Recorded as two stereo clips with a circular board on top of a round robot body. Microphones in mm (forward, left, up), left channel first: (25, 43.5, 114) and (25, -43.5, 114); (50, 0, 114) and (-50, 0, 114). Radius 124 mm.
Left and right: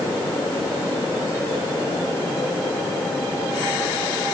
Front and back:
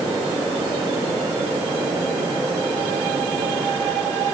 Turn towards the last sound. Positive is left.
No sound to turn to.